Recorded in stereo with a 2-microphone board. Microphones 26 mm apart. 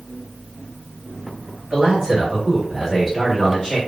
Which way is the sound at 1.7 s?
35° right (ahead or behind).